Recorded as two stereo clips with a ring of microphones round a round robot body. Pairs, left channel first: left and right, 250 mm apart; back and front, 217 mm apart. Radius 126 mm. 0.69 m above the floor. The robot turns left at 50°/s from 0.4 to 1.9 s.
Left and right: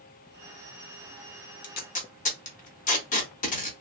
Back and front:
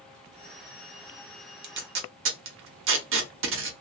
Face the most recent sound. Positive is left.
turn(degrees=30)